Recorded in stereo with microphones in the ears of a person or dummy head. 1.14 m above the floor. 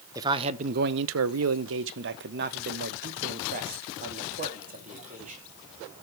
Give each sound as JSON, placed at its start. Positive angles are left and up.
{"t": 0.1, "sound": "a man speaking", "side_deg": -20, "distance_m": 0.6}